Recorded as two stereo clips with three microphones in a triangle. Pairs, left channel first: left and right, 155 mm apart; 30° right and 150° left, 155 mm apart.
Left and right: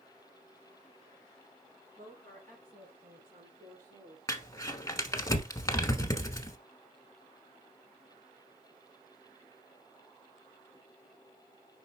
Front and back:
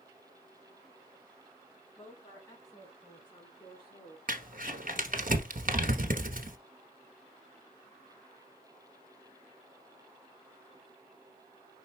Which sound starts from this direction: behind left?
Crumpling, at 4.3 s.